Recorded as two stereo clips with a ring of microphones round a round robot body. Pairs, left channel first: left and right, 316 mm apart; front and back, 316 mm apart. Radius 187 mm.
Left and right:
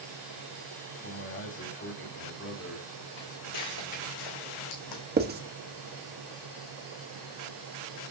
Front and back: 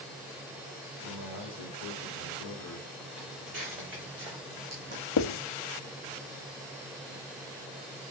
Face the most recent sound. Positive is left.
turn(degrees=-30)